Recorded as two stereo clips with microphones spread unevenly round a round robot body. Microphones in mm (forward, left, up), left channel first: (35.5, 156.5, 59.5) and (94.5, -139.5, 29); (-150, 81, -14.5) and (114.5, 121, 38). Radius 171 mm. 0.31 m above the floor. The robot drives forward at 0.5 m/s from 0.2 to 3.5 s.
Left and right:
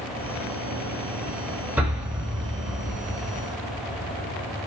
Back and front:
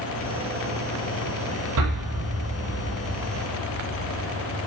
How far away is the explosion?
About 9.5 m.